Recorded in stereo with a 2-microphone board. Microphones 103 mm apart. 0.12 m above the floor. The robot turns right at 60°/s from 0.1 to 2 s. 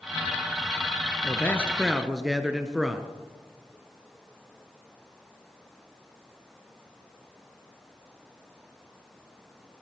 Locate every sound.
1.2 s a man speaking: 140° left, 2 m; by 3.1 s 175° right, 2 m